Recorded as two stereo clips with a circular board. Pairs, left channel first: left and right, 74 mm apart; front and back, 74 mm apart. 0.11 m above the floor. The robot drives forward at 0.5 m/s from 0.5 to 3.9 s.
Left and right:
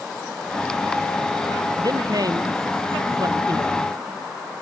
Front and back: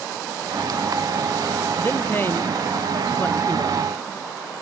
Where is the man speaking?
60° right.